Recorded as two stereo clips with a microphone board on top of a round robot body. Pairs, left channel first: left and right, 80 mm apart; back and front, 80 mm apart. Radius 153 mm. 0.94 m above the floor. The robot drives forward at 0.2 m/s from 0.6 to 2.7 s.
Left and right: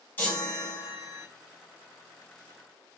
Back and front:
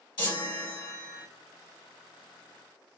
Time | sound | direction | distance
0.2 | a chime | 155° left | 2 m